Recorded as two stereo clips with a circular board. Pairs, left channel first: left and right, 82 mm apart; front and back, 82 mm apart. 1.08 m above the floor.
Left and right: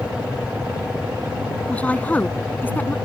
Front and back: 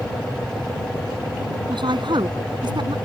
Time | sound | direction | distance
1.7 | a woman speaking | 165° left | ?